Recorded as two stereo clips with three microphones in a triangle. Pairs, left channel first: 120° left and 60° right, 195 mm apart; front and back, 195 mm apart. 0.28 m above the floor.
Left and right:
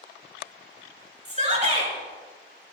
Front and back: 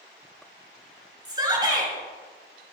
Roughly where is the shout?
Right.